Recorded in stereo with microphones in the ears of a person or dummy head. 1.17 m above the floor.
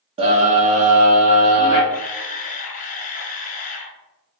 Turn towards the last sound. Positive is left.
turn(degrees=35)  # may be behind; listen again after turning